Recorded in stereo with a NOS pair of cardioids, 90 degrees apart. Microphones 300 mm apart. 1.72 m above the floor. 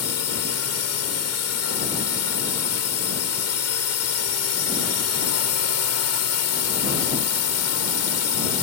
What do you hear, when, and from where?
0.0 s a drone: 55° left